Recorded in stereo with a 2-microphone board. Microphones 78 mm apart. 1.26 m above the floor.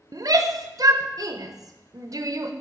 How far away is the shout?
About 0.6 m.